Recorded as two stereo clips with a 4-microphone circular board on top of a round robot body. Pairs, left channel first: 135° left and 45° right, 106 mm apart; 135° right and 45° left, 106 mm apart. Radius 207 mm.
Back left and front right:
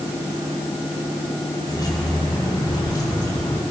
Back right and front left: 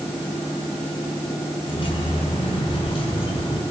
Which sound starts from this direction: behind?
Keys jangling, at 1.6 s.